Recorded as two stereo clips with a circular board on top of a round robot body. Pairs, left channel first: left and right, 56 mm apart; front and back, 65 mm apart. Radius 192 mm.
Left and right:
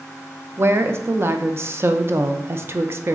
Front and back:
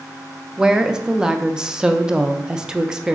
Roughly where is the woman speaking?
Right.